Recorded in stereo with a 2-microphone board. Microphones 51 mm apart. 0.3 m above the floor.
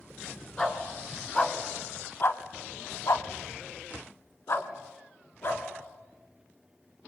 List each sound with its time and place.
0.6 s a dog barking: 15° left (ahead or behind), 2 m; by 5.6 s 45° left (ahead or behind), 2.5 m